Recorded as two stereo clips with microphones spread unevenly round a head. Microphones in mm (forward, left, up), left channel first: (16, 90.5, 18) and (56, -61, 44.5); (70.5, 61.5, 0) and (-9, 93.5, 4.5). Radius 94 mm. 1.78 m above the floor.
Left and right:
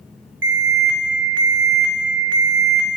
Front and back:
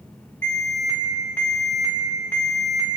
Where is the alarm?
105° right, 2 m.